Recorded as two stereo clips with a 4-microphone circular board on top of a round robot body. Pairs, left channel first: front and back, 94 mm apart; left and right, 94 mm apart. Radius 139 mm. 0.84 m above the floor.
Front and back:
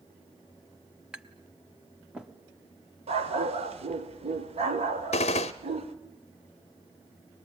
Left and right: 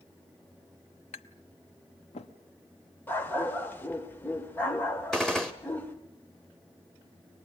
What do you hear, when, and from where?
1.1 s tapping: 100° left, 1.0 m
3.1 s a dog barking: 160° left, 1.5 m
5.1 s a gunshot: 5° left, 0.6 m